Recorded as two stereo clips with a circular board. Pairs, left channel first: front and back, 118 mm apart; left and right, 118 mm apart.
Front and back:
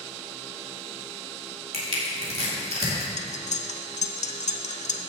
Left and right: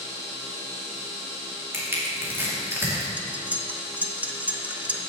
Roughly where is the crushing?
Behind.